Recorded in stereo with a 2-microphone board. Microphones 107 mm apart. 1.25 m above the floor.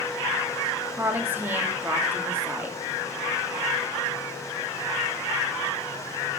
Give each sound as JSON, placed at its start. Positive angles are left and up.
{"t": 0.9, "sound": "a woman speaking", "side_deg": -20, "distance_m": 2.5}